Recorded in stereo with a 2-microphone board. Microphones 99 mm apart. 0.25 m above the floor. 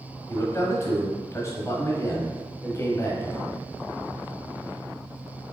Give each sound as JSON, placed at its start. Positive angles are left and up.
{"t": 0.3, "sound": "a man speaking", "side_deg": 30, "distance_m": 1.3}